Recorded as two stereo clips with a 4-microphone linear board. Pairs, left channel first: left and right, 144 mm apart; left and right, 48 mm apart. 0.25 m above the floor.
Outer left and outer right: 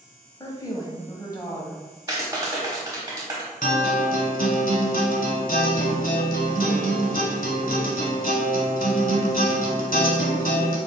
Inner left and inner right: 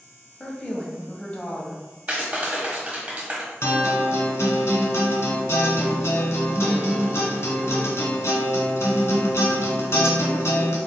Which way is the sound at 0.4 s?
25° left (ahead or behind).